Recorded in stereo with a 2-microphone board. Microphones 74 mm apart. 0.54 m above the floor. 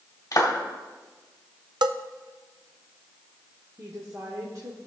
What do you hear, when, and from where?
0.3 s a clap: 45° left (ahead or behind), 2 m
1.8 s a bell: 70° right (ahead or behind), 0.5 m
3.8 s a woman speaking: 50° right (ahead or behind), 1.4 m